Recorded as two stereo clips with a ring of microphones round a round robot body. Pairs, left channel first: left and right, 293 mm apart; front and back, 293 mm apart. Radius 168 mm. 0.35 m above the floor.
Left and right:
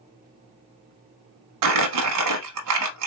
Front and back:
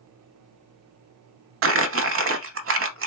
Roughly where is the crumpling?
Behind right.